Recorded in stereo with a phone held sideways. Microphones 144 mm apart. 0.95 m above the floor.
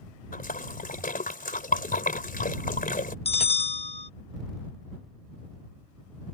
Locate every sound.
0.3 s a splash: 80° left
3.2 s a bell: 45° left (ahead or behind)